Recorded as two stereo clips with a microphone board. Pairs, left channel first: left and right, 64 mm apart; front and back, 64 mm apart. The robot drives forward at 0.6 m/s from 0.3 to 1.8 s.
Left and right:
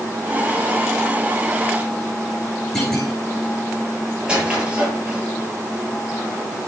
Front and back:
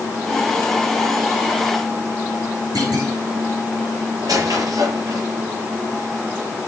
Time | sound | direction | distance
2.8 | a clunk | 175° left | 9 m
4.2 | a squeak | 165° right | 6.5 m